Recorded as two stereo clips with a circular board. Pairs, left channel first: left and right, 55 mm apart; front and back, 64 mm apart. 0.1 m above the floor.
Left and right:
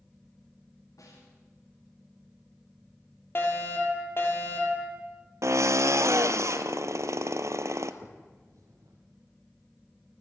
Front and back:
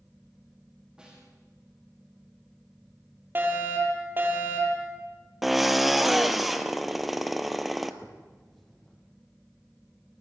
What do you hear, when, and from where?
1.0 s a snare drum: 100° left, 9 m
3.4 s a fire alarm: 125° left, 4.5 m
5.4 s a drill: 95° right, 1.1 m
8.0 s a finger snap: 85° right, 3.5 m